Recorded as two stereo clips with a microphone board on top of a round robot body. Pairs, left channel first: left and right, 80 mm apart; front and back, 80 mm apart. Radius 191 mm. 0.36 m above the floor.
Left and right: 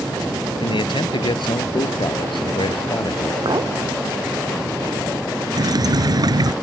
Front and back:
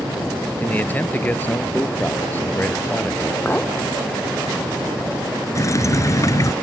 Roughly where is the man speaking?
Left.